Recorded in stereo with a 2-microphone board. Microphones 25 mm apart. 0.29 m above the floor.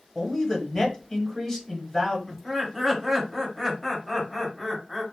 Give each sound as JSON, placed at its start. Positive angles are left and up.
{"t": 0.1, "sound": "a man speaking", "side_deg": 20, "distance_m": 1.4}
{"t": 2.3, "sound": "laughter", "side_deg": 5, "distance_m": 1.4}